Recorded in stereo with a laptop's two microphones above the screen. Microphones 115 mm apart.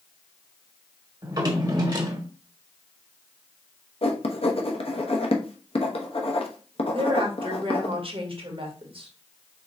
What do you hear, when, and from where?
1.2 s a drawer: 35° right (ahead or behind), 1.1 m
4.0 s writing: 55° left (ahead or behind), 0.9 m
6.9 s a woman speaking: 50° right (ahead or behind), 1.4 m